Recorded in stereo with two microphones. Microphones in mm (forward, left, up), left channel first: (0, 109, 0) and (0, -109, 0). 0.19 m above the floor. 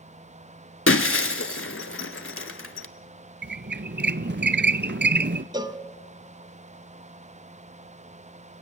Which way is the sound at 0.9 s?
75° left (ahead or behind).